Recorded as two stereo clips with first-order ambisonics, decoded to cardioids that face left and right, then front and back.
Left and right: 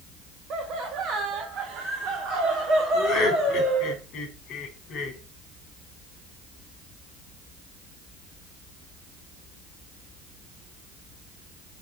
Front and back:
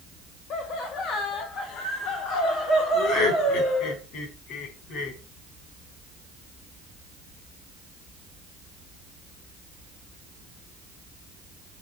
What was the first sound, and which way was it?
Laughter, 40° right.